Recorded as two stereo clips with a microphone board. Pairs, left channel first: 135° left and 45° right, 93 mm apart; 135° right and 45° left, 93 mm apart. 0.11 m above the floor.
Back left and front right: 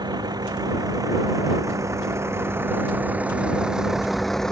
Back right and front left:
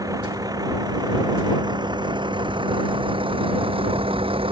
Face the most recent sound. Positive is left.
turn(degrees=50)